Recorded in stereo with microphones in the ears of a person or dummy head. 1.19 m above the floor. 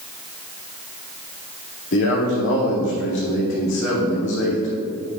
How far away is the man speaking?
About 2.5 m.